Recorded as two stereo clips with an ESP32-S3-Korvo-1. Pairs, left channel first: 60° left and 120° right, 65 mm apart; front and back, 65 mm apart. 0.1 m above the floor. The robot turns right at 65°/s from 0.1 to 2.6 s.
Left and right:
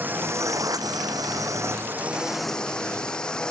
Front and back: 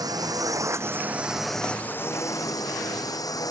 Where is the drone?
Straight behind; by 3.5 s 20° right.